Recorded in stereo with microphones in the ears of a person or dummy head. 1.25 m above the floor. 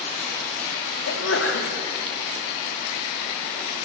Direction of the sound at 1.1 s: 90° left.